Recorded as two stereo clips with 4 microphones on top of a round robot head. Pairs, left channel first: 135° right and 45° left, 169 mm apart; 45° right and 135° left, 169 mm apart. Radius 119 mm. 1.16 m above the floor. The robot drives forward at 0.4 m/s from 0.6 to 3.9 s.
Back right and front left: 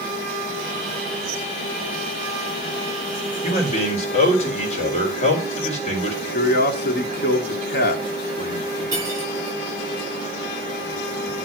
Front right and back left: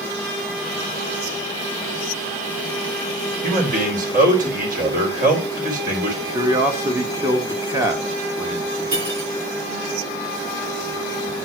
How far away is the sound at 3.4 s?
About 3.5 m.